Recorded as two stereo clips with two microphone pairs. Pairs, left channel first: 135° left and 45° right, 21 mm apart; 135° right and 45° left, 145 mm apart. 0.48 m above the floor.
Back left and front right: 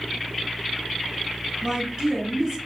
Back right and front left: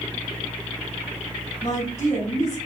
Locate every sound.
1.6 s a woman speaking: 100° right, 2.0 m